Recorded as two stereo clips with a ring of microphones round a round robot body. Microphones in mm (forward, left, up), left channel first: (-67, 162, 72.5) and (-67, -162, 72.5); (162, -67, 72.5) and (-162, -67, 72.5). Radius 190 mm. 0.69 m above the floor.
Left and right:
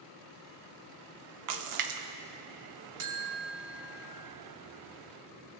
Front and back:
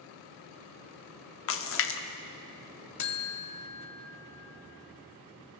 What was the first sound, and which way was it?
A splash, 55° right.